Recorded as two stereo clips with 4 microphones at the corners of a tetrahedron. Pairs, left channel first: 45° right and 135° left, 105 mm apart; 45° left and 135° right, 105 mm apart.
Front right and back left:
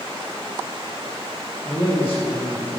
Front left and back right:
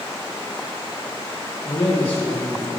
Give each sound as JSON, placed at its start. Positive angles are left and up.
{"t": 1.6, "sound": "a man speaking", "azimuth_deg": 20, "distance_m": 4.5}